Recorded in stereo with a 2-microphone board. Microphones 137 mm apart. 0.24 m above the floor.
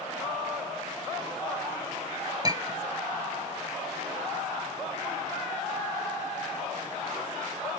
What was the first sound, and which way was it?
A clink, 30° right (ahead or behind).